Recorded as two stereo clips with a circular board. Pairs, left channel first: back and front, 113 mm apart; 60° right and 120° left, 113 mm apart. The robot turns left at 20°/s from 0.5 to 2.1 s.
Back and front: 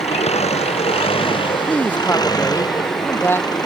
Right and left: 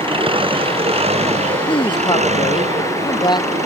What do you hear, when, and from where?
0.0 s an engine running: 160° left; by 3.7 s 125° left
1.7 s a man speaking: 100° right; by 3.6 s 110° right